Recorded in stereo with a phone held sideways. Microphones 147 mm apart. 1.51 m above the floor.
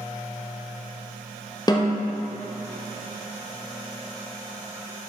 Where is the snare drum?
30° left (ahead or behind), 0.9 m.